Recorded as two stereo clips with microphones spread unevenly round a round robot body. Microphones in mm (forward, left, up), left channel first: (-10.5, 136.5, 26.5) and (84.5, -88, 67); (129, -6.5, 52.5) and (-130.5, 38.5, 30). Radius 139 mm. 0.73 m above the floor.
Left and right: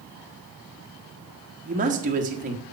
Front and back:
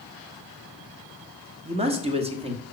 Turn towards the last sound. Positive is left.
turn(degrees=-130)